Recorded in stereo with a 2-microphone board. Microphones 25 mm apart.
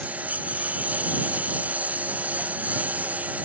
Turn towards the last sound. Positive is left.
turn(degrees=-90)